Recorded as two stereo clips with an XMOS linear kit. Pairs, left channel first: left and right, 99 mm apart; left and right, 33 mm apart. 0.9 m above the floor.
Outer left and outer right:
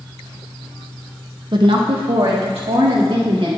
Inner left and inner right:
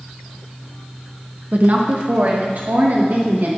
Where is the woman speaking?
50° right (ahead or behind), 0.7 m; by 3.5 s 80° right, 2 m.